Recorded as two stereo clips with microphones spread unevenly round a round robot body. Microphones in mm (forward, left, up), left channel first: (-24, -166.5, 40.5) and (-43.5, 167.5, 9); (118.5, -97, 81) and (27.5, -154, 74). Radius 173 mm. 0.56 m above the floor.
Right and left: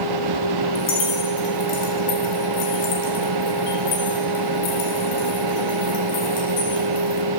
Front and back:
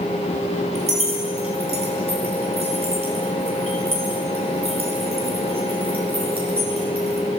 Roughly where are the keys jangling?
Behind right.